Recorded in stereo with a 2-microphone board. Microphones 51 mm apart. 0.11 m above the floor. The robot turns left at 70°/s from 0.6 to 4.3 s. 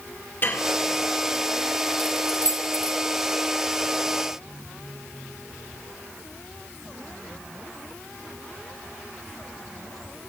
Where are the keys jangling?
35° left (ahead or behind), 1.7 m; by 3.0 s 45° left (ahead or behind), 1.7 m.